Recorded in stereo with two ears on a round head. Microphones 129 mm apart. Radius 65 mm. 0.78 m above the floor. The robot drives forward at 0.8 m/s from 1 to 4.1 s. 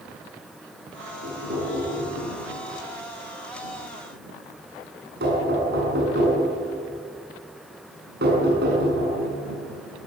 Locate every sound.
1.2 s knocking: 70° right (ahead or behind), 8 m; by 9.2 s 85° right, 7.5 m